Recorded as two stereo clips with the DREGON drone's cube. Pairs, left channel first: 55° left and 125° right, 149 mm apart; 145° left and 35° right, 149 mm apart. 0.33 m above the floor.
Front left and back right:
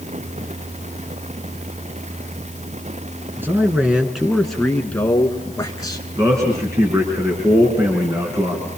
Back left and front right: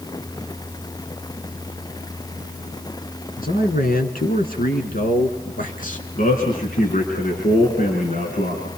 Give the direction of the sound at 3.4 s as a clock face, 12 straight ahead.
7 o'clock.